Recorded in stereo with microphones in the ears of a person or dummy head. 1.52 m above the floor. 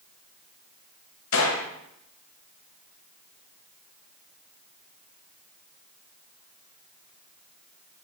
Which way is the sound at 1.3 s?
80° left.